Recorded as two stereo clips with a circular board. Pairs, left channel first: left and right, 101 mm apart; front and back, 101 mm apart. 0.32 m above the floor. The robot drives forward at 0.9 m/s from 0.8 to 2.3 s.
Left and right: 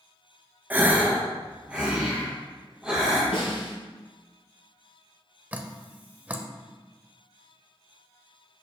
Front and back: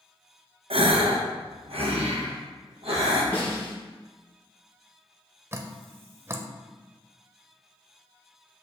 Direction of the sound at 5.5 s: 150° right.